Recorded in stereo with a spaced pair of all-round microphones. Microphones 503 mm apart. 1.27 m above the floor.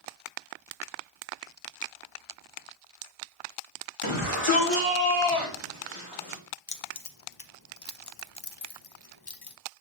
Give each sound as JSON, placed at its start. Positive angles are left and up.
{"t": 4.0, "sound": "a shout", "side_deg": 70, "distance_m": 2.5}
{"t": 6.7, "sound": "keys jangling", "side_deg": 50, "distance_m": 0.6}